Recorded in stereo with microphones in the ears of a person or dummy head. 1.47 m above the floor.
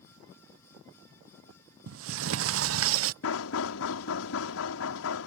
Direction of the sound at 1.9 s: 75° right (ahead or behind).